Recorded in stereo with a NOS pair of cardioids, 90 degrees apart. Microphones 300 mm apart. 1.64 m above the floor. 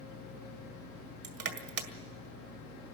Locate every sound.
0.0 s a fan: 70° left, 1.4 m
1.2 s crushing: 50° right, 2 m